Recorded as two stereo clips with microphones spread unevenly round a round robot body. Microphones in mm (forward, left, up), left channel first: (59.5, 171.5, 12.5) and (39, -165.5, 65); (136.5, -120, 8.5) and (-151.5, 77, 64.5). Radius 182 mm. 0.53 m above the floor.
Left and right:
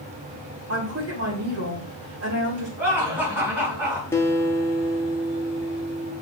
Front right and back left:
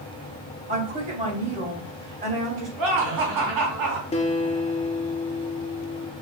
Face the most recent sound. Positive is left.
turn(degrees=20)